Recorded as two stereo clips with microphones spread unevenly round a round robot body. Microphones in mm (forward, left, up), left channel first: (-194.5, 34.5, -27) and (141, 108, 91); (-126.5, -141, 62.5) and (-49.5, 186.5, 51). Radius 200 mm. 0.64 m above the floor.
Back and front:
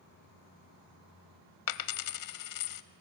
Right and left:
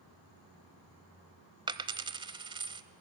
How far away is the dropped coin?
About 0.9 m.